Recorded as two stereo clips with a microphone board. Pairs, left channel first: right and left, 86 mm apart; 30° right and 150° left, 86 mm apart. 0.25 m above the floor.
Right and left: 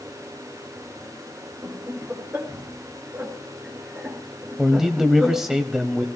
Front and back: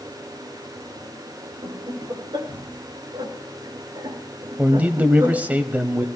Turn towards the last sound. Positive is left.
turn(degrees=160)